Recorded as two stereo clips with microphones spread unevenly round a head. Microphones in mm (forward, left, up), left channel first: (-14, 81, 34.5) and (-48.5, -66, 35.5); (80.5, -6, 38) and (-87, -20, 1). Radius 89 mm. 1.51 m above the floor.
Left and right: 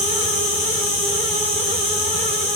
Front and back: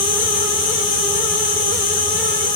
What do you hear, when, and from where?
0.0 s an insect: 45° left, 1.1 m